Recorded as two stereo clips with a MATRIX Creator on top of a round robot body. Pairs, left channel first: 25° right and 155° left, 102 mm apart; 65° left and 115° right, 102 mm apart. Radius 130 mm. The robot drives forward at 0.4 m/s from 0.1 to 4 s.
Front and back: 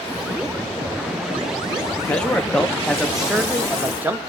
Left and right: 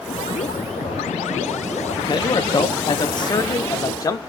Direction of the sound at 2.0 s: 50° left.